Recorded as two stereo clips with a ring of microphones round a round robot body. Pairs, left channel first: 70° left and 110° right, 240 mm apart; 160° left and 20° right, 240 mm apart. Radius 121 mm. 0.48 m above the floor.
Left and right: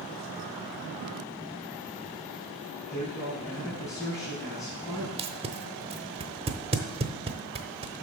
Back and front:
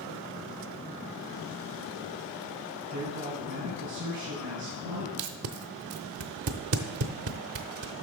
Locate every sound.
2.9 s a man speaking: 10° right, 4.5 m
5.2 s tape being pulled: 45° right, 0.7 m